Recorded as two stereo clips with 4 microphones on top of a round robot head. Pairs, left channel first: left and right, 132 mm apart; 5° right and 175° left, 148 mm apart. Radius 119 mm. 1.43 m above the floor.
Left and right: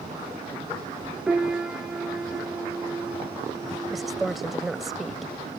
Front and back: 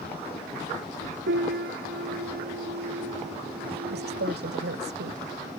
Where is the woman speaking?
Straight behind.